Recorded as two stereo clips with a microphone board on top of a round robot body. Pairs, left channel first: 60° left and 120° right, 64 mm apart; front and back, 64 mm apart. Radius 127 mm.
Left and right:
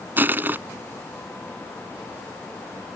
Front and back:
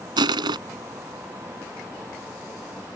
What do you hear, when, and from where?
0.2 s crushing: straight behind